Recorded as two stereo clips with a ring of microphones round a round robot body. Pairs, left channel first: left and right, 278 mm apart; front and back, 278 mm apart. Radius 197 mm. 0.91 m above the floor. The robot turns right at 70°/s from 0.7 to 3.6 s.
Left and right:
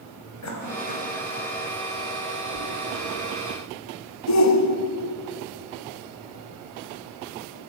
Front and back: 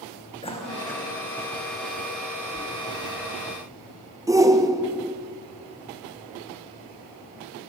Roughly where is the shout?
Left.